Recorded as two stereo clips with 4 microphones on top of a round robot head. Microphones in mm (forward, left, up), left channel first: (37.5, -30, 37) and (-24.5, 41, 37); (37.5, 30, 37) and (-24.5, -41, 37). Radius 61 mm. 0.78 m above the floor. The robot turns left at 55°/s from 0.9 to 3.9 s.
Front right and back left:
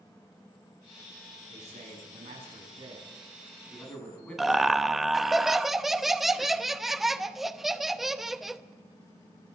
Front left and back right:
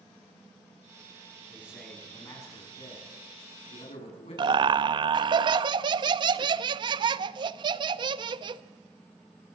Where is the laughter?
145° right, 0.8 m.